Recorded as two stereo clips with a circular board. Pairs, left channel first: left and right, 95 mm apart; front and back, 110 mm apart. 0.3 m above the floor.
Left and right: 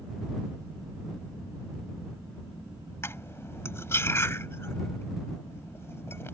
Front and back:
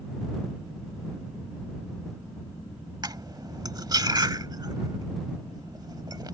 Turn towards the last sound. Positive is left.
turn(degrees=145)